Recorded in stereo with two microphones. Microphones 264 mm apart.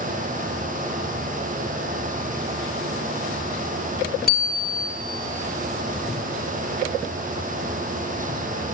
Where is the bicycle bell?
35° left (ahead or behind), 2 m.